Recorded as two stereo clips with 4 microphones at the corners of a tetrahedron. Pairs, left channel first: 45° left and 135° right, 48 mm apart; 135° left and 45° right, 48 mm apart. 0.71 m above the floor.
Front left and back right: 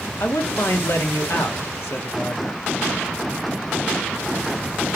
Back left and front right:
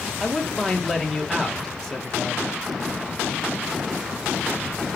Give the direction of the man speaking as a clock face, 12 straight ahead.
10 o'clock.